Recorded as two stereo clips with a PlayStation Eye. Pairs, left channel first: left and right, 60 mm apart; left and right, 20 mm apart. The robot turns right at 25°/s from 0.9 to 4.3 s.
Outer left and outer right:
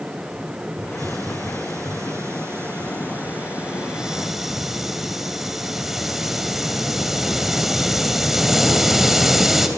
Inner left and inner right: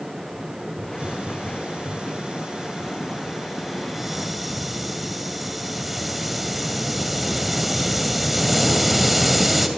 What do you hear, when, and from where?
0.8 s a hiss: 90° right, 3 m; by 9.7 s 5° right, 3 m